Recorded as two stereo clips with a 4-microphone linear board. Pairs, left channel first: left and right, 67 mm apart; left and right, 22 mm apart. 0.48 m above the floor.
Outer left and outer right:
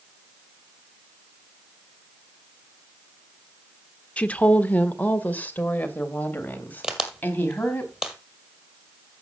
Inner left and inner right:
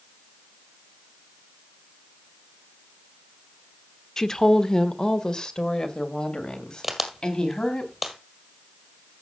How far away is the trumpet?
I don't hear a trumpet.